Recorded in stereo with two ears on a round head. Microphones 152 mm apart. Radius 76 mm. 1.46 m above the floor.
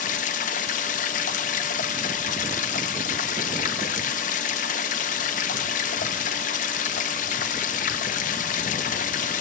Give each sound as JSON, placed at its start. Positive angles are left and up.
{"t": 0.0, "sound": "running water", "side_deg": 50, "distance_m": 0.9}